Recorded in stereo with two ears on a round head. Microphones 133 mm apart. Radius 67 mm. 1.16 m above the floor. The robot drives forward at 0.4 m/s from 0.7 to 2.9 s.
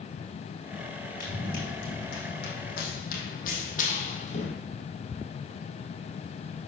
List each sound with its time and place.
1.2 s running footsteps: 60° left (ahead or behind), 4.5 m; by 4.5 s 45° left (ahead or behind), 2.5 m